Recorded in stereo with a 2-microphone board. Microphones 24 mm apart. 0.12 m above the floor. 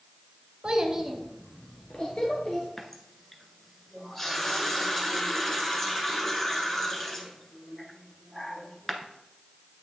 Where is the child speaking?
30° right (ahead or behind), 0.9 m; by 2.7 s 50° left (ahead or behind), 1.6 m.